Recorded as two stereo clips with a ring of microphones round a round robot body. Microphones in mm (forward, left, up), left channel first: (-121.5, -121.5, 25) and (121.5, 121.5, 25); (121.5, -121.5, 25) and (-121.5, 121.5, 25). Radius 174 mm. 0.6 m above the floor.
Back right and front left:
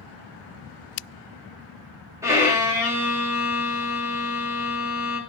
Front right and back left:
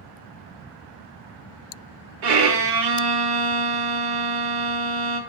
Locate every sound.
2.2 s a violin: 125° left, 2.5 m